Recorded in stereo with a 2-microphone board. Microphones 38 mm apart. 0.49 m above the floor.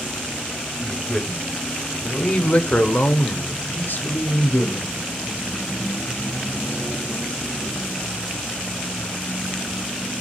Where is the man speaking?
10° left (ahead or behind), 2.0 m; by 5.0 s 60° left (ahead or behind), 1.6 m.